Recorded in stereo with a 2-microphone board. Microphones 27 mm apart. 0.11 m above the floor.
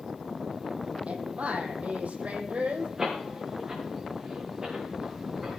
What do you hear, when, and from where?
1.1 s a woman speaking: 60° right (ahead or behind), 3.5 m
3.0 s a door slam: 15° right (ahead or behind), 6.5 m